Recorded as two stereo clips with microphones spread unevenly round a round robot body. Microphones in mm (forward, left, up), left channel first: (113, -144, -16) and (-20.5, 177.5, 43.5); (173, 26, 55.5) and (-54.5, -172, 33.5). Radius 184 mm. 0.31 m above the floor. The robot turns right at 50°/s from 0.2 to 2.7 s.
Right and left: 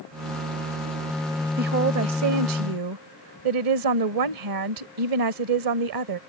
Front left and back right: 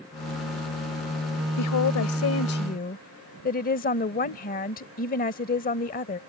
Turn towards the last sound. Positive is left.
turn(degrees=100)